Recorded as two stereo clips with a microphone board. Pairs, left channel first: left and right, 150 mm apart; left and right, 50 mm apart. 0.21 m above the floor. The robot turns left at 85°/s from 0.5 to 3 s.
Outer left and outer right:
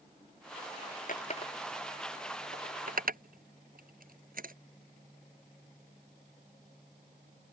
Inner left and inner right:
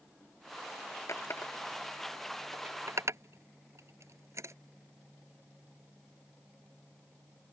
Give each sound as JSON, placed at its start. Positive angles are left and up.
{"t": 1.1, "sound": "a running tap", "side_deg": 65}